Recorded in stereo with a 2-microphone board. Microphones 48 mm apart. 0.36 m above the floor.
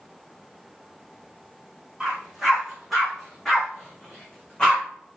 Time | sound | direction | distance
2.0 | a dog barking | 10° right (ahead or behind) | 5 m